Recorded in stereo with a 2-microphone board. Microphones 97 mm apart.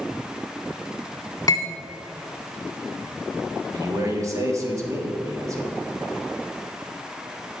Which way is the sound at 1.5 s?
35° left (ahead or behind).